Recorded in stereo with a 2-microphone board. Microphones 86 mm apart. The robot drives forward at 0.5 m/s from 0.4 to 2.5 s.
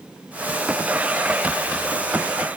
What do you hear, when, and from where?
Only background noise.